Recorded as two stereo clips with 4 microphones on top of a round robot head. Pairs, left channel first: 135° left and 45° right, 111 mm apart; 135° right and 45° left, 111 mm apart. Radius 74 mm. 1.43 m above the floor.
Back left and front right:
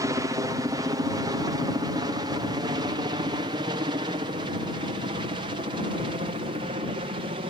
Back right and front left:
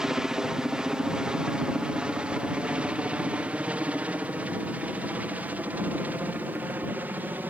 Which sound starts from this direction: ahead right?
A helicopter, at 0.0 s.